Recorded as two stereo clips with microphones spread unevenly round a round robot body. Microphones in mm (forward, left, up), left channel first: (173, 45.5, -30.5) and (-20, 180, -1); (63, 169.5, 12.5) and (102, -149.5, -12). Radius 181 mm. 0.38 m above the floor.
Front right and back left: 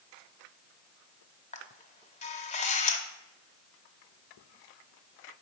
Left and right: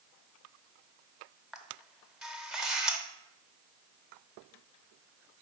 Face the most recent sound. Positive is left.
turn(degrees=0)